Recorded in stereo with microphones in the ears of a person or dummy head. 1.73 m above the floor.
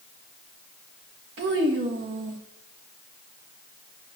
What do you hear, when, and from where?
1.4 s a child speaking: 60° right (ahead or behind), 1.6 m